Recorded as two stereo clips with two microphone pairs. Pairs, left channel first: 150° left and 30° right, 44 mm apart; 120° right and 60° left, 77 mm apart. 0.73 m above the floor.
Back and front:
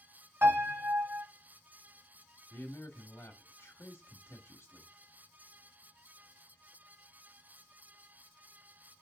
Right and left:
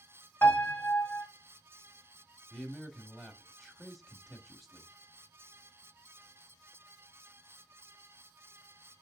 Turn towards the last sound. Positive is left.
turn(degrees=150)